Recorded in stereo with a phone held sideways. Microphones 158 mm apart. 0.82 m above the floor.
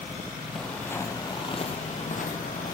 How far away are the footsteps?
About 1.9 m.